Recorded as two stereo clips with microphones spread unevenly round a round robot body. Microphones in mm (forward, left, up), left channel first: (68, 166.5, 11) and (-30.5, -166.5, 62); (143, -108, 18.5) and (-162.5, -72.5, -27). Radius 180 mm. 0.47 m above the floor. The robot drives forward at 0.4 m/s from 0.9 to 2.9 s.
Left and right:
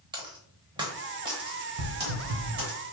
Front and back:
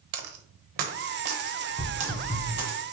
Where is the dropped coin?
175° left, 0.6 m; by 2.8 s straight behind, 1.4 m.